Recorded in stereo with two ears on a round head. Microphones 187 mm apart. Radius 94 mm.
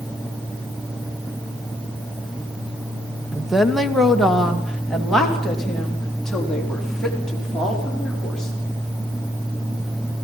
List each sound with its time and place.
3.3 s a woman speaking: centre (ahead or behind), 1.0 m; by 8.5 s 5° left (ahead or behind), 6 m